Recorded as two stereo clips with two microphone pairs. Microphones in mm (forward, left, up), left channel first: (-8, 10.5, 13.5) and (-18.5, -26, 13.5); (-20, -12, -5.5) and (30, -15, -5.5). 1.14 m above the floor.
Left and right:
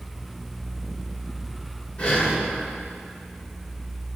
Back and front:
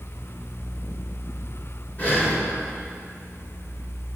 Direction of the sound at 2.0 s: 130° left.